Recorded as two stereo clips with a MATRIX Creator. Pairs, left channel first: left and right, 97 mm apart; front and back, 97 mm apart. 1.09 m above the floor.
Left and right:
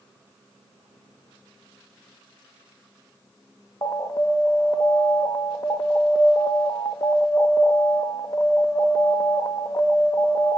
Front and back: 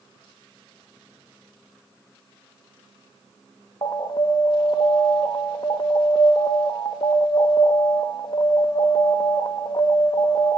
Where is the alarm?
40° left, 1.4 m.